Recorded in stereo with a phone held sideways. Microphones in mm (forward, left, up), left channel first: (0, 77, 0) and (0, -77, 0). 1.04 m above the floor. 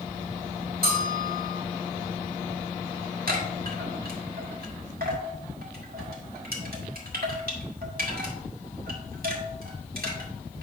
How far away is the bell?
About 2.5 m.